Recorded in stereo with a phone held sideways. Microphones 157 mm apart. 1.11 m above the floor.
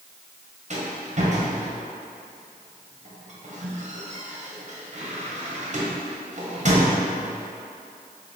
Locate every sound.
0.7 s a rattle: 50° right (ahead or behind), 0.9 m